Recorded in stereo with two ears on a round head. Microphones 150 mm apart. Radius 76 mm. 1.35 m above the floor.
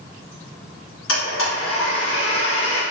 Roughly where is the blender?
Left.